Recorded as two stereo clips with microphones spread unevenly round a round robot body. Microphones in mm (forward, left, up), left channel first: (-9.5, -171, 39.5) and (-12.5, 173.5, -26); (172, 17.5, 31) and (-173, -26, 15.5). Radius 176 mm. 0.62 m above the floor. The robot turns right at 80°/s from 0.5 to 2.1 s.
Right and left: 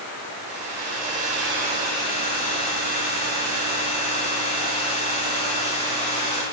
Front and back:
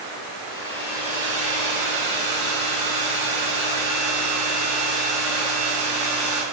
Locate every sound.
0.5 s a hair dryer: 70° left, 1.7 m; by 6.4 s 160° right, 1.7 m